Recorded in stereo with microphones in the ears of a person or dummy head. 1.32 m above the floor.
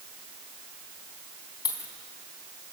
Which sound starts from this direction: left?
A dropped coin, at 1.6 s.